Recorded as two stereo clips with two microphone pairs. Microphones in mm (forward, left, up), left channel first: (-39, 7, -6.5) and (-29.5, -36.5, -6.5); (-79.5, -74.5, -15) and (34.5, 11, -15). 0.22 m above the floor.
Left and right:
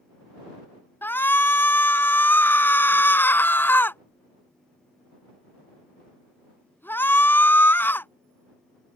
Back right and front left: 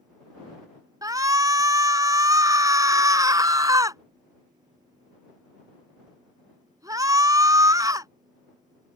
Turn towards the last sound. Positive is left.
turn(degrees=100)